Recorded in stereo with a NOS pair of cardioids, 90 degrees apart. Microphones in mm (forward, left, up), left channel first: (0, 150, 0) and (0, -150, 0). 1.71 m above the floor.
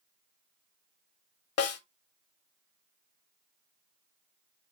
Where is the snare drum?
55° left, 1.1 m.